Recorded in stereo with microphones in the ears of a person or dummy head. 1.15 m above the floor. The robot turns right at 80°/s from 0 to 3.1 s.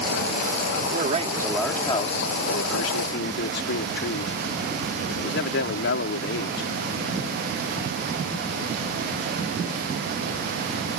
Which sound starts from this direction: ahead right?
A man speaking, at 0.9 s.